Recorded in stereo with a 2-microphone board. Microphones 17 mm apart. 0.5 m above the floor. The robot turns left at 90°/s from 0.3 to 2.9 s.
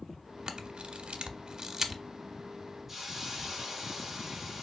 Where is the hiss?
25° right (ahead or behind), 1.3 m.